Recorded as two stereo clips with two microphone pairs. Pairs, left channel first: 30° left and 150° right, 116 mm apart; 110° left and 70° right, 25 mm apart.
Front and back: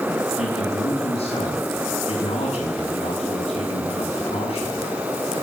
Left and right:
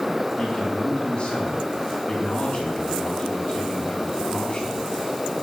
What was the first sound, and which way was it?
A man speaking, 45° left.